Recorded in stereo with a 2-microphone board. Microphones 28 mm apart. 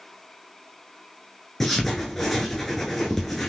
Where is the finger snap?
No finger snap in this recording.